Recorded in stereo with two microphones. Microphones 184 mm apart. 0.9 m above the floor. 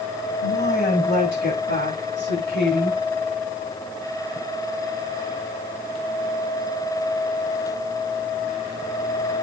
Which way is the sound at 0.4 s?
65° left (ahead or behind).